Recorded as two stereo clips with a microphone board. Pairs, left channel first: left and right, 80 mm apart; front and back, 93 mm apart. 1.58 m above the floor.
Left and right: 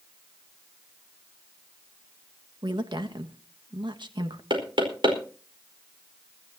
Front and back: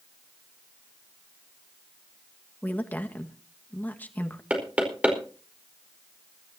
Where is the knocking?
105° right, 4.5 m.